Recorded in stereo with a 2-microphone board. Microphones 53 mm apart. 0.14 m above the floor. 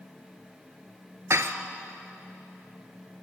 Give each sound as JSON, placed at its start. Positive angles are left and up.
{"t": 1.3, "sound": "dishes clattering", "side_deg": -55, "distance_m": 1.4}